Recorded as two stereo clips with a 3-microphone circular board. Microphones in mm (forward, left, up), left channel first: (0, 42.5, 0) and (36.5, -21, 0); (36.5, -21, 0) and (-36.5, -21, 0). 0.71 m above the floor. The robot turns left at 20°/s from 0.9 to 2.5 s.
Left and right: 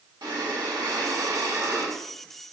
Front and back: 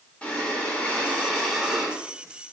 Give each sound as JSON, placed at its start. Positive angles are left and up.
{"t": 0.2, "sound": "breathing", "azimuth_deg": -70, "distance_m": 1.7}